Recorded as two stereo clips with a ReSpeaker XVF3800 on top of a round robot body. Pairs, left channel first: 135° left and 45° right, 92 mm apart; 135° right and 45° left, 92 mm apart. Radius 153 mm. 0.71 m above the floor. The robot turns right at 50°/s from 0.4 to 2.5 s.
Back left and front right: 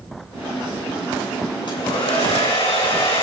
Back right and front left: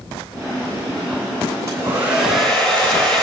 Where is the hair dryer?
100° left, 10 m; by 3.2 s 145° left, 10 m.